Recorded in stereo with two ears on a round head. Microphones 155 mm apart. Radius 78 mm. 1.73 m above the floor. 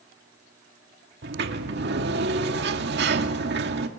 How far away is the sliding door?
About 2 m.